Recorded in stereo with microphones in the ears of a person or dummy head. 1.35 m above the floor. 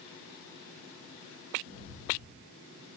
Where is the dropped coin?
No dropped coin in this recording.